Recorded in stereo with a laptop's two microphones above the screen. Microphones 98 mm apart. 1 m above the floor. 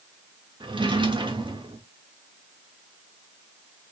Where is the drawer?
55° right (ahead or behind), 0.6 m.